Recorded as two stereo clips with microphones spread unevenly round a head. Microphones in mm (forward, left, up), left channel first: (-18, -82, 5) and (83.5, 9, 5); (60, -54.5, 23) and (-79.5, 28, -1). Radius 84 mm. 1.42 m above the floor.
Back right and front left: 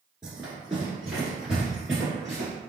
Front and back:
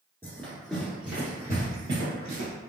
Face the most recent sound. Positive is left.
turn(degrees=130)